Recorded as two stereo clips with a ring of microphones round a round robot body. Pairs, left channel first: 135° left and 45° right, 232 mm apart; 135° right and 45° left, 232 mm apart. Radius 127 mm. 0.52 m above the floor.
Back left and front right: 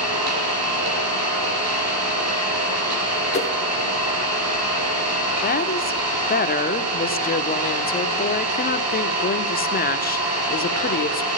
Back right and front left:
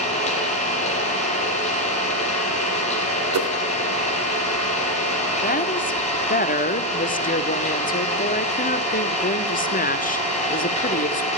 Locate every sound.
0.0 s an engine running: 70° right, 6 m
3.3 s a whoosh: 70° left, 2 m
5.4 s a woman speaking: straight behind, 1.6 m